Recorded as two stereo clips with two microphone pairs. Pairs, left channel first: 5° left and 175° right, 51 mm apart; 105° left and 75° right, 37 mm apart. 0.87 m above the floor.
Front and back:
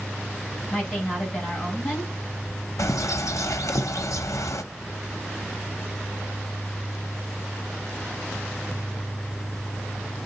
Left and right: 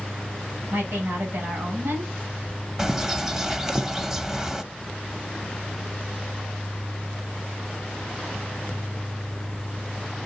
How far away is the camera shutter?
No camera shutter in this recording.